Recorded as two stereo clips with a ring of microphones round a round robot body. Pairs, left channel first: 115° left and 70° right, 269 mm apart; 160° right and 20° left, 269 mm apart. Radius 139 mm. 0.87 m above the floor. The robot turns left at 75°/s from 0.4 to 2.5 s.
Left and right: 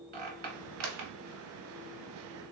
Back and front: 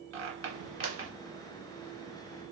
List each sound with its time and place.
0.1 s a squeak: 15° right, 1.3 m; by 1.1 s 65° right, 1.3 m